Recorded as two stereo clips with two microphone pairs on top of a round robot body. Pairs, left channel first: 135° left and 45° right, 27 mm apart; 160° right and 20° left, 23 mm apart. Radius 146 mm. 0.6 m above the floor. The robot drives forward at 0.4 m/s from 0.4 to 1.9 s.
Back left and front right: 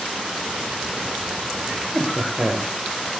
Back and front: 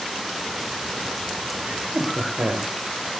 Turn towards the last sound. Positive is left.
turn(degrees=25)